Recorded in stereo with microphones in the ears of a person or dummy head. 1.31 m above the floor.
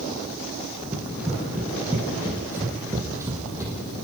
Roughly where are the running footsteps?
Centre.